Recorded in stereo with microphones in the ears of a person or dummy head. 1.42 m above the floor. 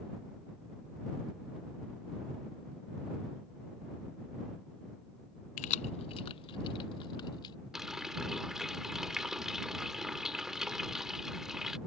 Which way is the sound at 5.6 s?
45° left (ahead or behind).